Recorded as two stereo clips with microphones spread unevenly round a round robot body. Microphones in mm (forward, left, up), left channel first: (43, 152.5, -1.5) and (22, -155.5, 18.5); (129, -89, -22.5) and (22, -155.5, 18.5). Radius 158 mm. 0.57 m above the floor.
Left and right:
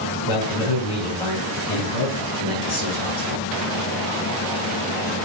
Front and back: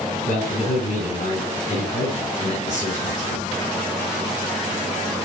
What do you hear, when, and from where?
0.3 s a man speaking: 80° left, 5 m